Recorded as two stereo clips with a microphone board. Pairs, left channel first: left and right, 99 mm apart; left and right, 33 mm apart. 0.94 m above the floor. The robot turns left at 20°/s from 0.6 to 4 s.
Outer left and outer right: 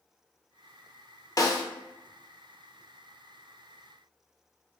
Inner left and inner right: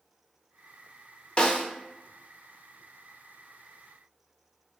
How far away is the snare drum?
About 0.6 m.